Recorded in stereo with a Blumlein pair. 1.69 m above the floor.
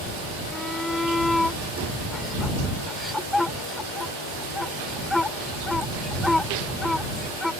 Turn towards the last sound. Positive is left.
turn(degrees=5)